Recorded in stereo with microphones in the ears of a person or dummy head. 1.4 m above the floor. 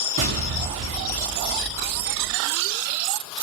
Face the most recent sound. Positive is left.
turn(degrees=-35)  # may be behind; listen again after turning